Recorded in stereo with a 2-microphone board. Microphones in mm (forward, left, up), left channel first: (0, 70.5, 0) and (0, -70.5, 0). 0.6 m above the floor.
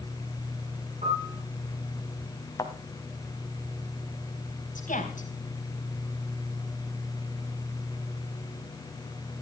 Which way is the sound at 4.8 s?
75° left (ahead or behind).